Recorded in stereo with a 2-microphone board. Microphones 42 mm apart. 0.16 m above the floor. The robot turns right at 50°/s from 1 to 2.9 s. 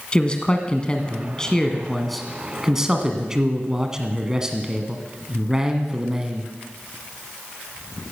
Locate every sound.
0.1 s a man speaking: 25° left (ahead or behind), 1.5 m; by 6.5 s 15° right (ahead or behind), 1.5 m